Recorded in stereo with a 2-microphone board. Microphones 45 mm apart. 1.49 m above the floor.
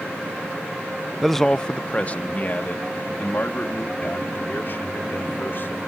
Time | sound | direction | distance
1.2 | a man speaking | 5° right (ahead or behind) | ?